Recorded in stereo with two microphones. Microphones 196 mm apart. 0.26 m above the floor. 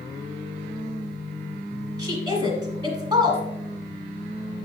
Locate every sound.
2.0 s a woman speaking: 20° right (ahead or behind), 1.3 m